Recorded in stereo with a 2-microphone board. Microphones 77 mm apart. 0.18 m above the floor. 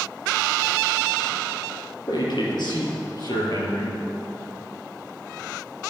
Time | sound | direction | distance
2.1 | a man speaking | 70° left (ahead or behind) | 4 m